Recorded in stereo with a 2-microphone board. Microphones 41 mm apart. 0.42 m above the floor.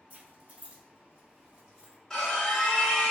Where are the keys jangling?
40° right (ahead or behind), 1.0 m; by 2.0 s 15° right (ahead or behind), 1.3 m.